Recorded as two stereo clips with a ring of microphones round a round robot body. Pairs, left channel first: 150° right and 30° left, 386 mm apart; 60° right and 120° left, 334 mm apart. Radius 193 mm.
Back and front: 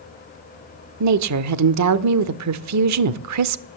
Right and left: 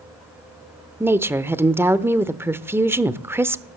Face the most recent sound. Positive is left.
turn(degrees=40)